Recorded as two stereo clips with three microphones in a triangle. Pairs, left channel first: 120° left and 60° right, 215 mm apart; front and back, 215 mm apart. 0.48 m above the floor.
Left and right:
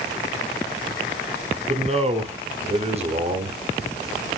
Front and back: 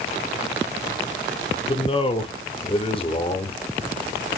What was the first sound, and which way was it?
A man speaking, 35° right.